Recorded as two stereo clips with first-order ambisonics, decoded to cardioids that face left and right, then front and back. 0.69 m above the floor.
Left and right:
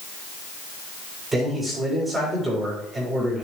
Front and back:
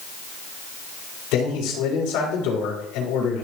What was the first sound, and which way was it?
A man speaking, 15° right.